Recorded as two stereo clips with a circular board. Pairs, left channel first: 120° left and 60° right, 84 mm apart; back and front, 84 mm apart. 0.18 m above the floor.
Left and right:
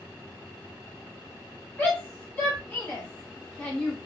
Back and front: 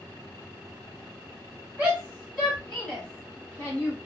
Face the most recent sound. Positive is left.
turn(degrees=175)